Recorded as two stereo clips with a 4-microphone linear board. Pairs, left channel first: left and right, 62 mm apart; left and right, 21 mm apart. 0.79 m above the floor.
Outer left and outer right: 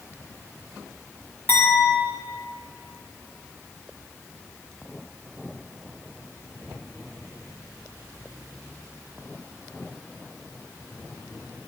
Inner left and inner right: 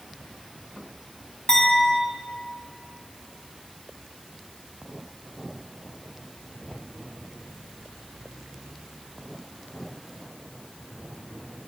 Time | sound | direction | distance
1.5 | a clink | 35° left (ahead or behind) | 4 m